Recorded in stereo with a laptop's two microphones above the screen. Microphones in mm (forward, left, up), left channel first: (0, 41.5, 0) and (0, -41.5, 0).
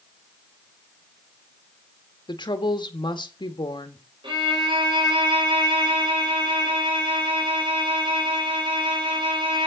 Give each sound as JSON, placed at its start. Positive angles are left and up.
{"t": 2.3, "sound": "a woman speaking", "side_deg": 60, "distance_m": 1.7}
{"t": 4.2, "sound": "a violin", "side_deg": -75, "distance_m": 5.5}